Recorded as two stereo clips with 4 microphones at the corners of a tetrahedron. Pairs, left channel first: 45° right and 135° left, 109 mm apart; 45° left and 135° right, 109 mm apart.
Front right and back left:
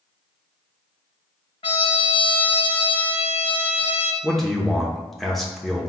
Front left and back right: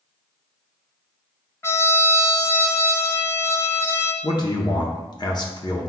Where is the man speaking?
45° left, 0.8 m.